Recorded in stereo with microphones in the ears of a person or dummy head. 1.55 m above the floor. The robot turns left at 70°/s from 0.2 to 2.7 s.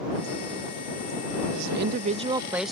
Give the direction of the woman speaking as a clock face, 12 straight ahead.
3 o'clock.